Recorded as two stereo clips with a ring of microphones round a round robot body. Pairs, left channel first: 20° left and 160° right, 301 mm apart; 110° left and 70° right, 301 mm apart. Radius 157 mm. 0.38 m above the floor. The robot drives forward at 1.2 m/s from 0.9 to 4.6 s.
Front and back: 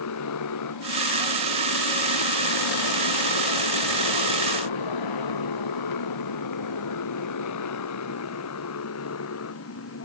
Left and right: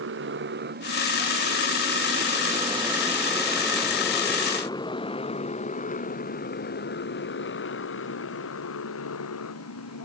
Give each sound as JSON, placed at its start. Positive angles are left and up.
{"t": 0.0, "sound": "a motorcycle", "azimuth_deg": -15}